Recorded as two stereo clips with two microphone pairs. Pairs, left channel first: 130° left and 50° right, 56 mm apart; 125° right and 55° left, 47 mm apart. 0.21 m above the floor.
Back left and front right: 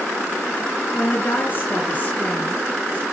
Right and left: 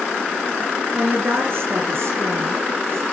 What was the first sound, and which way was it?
A woman speaking, 90° left.